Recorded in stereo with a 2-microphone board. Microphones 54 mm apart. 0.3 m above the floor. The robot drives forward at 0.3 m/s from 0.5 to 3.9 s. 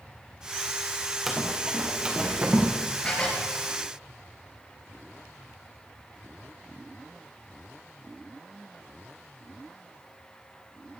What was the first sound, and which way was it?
Running footsteps, 5° right (ahead or behind).